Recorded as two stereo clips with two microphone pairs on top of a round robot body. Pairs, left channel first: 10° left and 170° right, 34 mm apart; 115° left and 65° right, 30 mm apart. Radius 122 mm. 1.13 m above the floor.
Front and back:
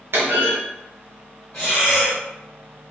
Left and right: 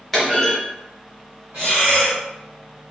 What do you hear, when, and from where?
0.1 s a clunk: 165° right, 1.3 m
1.5 s breathing: 50° right, 0.8 m